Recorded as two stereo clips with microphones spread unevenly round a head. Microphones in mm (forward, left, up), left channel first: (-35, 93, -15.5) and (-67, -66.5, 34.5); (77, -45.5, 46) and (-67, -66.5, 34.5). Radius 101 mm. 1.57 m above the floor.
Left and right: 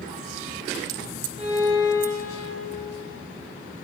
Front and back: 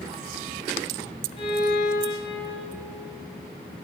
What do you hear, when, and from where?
1.4 s a violin: 35° right, 3.5 m